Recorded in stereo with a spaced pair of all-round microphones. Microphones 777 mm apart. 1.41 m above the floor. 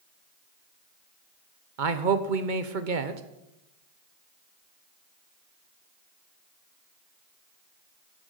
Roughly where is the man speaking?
Right.